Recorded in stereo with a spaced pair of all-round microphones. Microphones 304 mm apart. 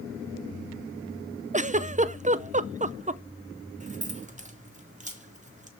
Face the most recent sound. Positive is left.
turn(degrees=-25)  # may be behind; listen again after turning